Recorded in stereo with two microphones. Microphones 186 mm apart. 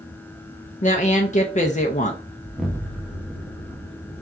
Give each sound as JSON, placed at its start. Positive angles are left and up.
{"t": 0.8, "sound": "a woman speaking", "side_deg": 40, "distance_m": 0.5}
{"t": 2.4, "sound": "an explosion", "side_deg": -5, "distance_m": 0.8}